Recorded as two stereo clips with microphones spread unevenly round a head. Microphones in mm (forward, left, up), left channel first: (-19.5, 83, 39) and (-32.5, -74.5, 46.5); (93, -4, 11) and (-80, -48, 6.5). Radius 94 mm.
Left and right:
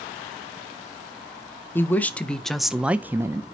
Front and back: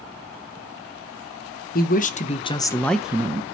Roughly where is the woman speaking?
Ahead.